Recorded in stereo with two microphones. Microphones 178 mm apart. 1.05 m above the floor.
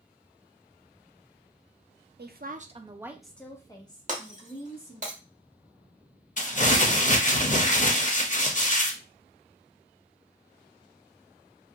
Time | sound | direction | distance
2.2 | a woman speaking | 65° right (ahead or behind) | 0.6 m
4.1 | breaking glass | 45° right (ahead or behind) | 1.0 m
6.4 | crumpling | 45° left (ahead or behind) | 0.6 m